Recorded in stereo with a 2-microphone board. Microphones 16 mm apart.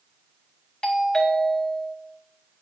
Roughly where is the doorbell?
Left.